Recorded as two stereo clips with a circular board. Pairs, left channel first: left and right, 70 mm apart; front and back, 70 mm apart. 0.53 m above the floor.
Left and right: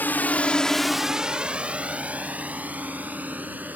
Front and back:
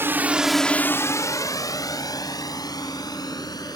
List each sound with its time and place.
0.0 s a drone: 140° left; by 3.8 s 25° right